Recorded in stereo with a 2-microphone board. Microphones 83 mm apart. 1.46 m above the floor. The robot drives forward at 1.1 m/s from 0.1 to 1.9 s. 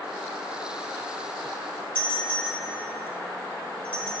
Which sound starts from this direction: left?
A doorbell, at 1.9 s.